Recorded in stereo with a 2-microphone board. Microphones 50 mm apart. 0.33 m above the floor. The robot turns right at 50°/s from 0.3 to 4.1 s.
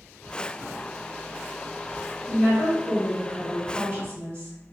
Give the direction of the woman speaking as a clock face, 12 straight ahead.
6 o'clock.